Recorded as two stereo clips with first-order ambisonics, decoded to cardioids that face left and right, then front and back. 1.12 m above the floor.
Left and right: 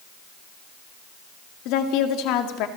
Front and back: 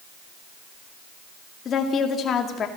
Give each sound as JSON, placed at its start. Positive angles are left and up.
{"t": 1.6, "sound": "a woman speaking", "azimuth_deg": 65, "distance_m": 2.0}